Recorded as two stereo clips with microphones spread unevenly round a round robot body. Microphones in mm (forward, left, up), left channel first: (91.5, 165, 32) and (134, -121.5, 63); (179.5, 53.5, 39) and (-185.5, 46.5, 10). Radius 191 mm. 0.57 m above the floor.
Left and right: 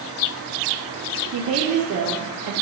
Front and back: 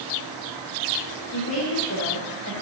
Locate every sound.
1.3 s a woman speaking: 55° right, 1.4 m; by 2.5 s 45° right, 1.9 m